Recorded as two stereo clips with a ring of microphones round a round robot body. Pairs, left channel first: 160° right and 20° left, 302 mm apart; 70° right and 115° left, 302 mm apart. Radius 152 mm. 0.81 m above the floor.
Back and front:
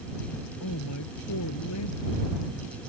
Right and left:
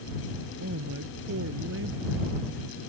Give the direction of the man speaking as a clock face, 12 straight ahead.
7 o'clock.